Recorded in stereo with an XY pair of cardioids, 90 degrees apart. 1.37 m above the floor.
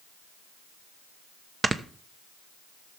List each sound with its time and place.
1.6 s snoring: 30° right, 1.0 m